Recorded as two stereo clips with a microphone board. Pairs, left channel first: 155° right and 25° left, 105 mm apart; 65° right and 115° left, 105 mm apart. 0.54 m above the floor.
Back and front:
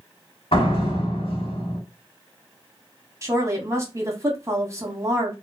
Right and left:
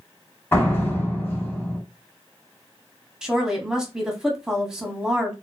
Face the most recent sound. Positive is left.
turn(degrees=35)